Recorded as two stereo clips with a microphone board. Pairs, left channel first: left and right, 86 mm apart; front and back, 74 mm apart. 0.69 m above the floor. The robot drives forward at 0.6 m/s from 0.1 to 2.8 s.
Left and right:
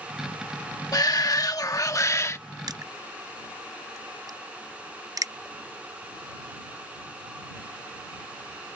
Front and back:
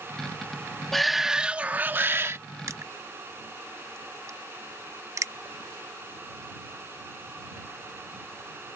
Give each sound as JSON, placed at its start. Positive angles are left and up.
{"t": 0.9, "sound": "a shout", "azimuth_deg": 85}
{"t": 2.7, "sound": "crushing", "azimuth_deg": -125}